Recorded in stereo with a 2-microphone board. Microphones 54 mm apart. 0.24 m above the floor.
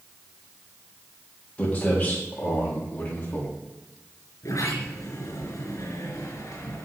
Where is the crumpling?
I don't hear crumpling.